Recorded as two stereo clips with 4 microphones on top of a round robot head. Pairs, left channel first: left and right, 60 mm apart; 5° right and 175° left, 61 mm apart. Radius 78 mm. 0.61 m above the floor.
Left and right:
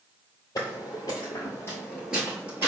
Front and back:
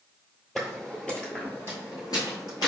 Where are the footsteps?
85° left, 0.9 m; by 2.7 s 30° right, 0.9 m.